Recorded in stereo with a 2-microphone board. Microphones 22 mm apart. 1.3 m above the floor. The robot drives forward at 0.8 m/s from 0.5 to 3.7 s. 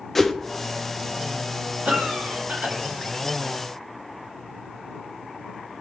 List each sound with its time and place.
0.1 s a whoosh: 10° left (ahead or behind), 0.6 m
1.9 s a cough: 85° right, 2.5 m; by 2.8 s 75° right (ahead or behind), 2.5 m